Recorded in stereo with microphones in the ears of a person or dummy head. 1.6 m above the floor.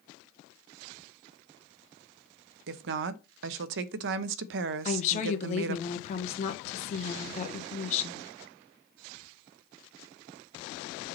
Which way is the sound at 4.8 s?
40° left (ahead or behind).